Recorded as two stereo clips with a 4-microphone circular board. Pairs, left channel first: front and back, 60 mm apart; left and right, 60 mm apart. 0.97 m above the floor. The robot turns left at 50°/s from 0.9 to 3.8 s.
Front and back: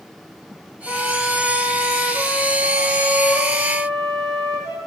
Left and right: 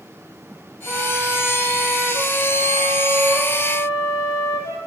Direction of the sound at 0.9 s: 90° right.